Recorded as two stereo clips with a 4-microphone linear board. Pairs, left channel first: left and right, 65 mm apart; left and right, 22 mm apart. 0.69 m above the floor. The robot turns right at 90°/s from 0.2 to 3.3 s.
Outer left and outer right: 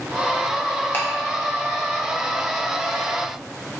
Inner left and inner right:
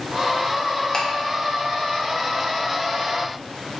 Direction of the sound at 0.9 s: 35° left (ahead or behind).